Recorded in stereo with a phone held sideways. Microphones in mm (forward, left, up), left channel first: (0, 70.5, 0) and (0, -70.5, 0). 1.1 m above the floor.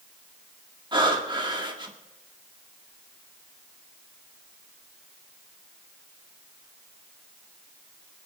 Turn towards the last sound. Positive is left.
turn(degrees=-35)  # may be behind; listen again after turning